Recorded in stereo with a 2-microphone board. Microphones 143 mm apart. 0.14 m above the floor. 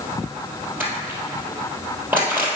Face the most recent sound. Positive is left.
turn(degrees=-15)  # may be behind; listen again after turning